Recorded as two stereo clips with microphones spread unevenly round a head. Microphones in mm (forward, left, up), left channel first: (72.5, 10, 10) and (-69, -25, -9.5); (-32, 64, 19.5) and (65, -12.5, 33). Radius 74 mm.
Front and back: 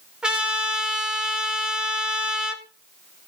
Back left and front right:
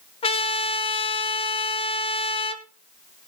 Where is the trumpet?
110° left, 1.6 m.